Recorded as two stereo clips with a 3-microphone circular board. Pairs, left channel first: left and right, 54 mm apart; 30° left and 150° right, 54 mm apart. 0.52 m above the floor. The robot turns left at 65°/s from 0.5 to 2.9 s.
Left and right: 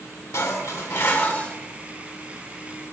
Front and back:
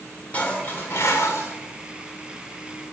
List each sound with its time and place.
0.3 s dishes clattering: 90° left, 1.1 m; by 1.6 s 25° left, 1.1 m